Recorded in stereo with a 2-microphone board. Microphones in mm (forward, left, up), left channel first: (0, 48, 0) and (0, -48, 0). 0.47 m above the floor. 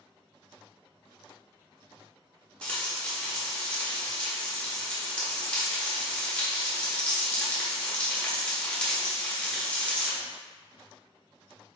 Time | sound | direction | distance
2.6 | frying | 10° left (ahead or behind) | 1.0 m